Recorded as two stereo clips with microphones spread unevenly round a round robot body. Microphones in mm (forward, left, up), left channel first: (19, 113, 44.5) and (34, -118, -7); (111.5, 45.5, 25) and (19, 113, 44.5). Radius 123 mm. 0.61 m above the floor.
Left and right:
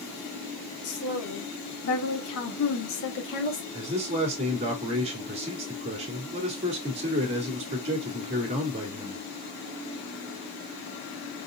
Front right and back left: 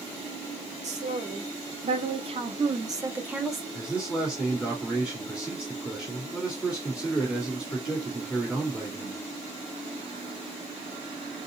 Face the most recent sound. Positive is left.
turn(degrees=-120)